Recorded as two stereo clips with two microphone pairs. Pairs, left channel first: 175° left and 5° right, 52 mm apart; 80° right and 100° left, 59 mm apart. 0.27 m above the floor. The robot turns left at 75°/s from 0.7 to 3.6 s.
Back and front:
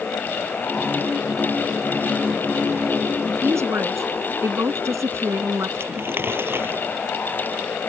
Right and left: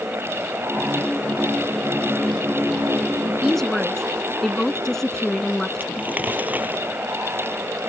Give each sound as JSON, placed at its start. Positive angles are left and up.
{"t": 3.2, "sound": "a woman speaking", "azimuth_deg": 30}
{"t": 5.8, "sound": "crumpling", "azimuth_deg": 40}